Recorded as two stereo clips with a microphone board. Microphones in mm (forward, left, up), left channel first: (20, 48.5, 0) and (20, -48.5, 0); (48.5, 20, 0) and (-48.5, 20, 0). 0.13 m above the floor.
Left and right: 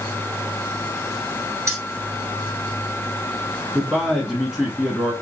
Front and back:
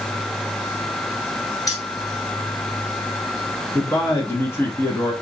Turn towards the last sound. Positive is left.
turn(degrees=-15)